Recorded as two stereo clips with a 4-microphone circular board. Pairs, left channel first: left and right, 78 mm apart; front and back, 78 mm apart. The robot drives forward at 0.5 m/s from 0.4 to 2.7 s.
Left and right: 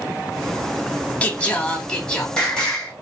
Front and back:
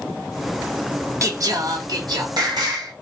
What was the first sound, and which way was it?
Singing, 150° left.